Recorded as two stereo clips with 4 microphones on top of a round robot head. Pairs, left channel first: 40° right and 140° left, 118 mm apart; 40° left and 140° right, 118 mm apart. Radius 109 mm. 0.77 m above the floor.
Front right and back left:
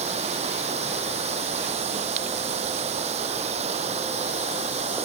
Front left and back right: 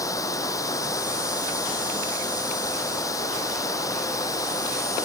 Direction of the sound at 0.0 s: 105° left.